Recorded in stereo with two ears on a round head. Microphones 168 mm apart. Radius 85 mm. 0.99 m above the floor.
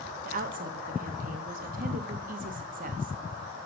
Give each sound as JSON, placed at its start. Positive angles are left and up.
{"t": 0.2, "sound": "a woman speaking", "side_deg": -45, "distance_m": 0.9}